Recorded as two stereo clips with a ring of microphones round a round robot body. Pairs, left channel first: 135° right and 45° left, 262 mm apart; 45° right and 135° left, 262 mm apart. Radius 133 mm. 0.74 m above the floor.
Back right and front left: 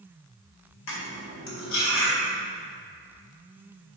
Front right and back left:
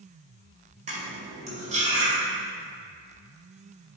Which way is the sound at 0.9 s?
160° right.